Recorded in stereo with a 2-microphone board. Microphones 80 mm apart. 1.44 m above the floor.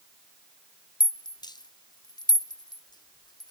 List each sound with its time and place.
1.0 s a rattle: 65° left (ahead or behind), 0.6 m